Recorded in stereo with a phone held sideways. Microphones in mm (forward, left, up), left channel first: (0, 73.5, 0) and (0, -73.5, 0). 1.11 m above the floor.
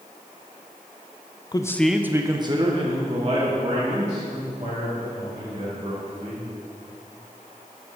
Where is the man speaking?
30° left (ahead or behind), 0.5 m; by 6.5 s 50° right (ahead or behind), 4 m.